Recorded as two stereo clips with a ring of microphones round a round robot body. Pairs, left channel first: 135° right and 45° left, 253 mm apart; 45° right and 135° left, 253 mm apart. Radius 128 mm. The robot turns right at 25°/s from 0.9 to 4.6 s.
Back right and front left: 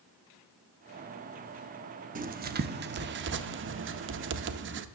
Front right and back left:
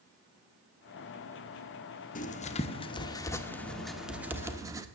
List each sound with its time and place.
2.1 s writing: straight ahead, 0.6 m; by 4.8 s 60° left, 0.6 m